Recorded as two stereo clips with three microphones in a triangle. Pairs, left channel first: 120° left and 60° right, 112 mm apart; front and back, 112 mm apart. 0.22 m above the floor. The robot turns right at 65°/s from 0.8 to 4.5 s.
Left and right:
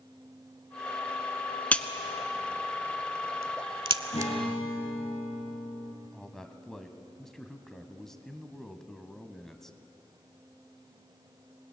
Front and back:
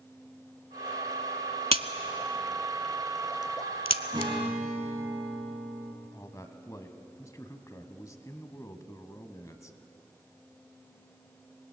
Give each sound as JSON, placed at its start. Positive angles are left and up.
{"t": 1.7, "sound": "a crack", "azimuth_deg": -165, "distance_m": 0.7}
{"t": 4.1, "sound": "a guitar", "azimuth_deg": 130, "distance_m": 3.5}
{"t": 6.0, "sound": "a man speaking", "azimuth_deg": 35, "distance_m": 1.3}